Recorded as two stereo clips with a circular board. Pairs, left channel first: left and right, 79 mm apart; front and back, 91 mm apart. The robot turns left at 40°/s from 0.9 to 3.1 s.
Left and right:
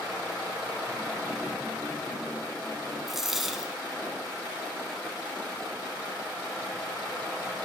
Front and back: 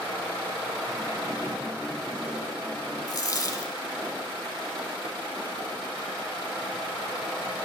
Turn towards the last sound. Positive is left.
turn(degrees=-5)